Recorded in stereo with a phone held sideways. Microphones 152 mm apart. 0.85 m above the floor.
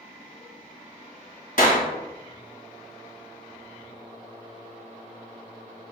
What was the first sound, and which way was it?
A clap, 60° left (ahead or behind).